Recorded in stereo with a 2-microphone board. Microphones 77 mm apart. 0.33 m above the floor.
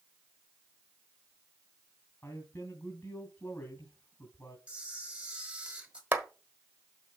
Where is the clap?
30° right (ahead or behind), 1.3 m.